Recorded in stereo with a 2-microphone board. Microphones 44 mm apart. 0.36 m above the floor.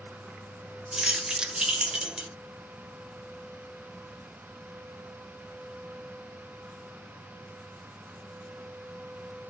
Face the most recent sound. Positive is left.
turn(degrees=-20)  # may be behind; listen again after turning